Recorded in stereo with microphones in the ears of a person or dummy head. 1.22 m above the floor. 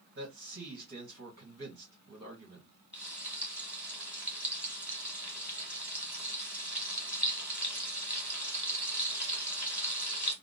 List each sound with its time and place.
0.1 s a man speaking: 50° right (ahead or behind), 1.7 m
2.9 s frying: 5° right (ahead or behind), 1.5 m